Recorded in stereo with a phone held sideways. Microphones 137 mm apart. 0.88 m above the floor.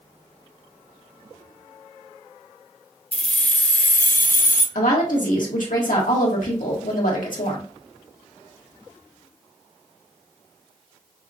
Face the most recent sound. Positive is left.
turn(degrees=80)